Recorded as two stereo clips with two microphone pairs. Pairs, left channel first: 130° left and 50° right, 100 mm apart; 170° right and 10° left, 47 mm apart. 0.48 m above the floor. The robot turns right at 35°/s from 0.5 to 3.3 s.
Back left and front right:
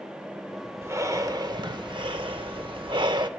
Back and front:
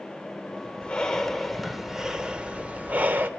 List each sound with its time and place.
0.8 s breathing: 110° right, 0.7 m; by 3.3 s 25° right, 0.7 m